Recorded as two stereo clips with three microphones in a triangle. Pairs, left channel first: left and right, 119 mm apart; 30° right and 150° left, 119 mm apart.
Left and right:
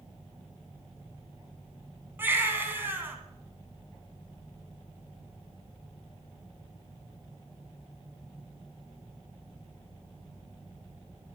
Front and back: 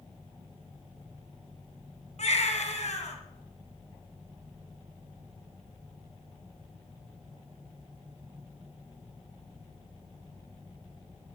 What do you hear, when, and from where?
2.2 s a baby crying: 20° right, 2.5 m